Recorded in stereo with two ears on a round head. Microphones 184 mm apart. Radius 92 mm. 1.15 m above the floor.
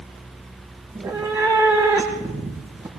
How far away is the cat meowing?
About 4.5 m.